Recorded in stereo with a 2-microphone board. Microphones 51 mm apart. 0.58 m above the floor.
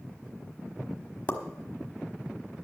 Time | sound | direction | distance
1.3 | a pop | 35° left (ahead or behind) | 1.2 m